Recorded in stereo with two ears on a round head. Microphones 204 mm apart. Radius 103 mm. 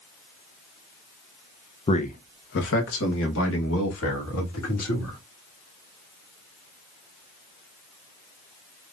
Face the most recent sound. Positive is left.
turn(degrees=70)  # may be behind; listen again after turning